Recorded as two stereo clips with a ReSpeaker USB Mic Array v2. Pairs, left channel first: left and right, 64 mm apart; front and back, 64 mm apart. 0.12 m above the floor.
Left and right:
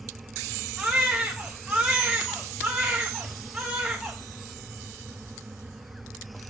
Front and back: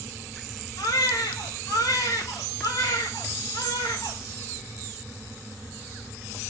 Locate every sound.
0.8 s a baby crying: 10° right, 3.5 m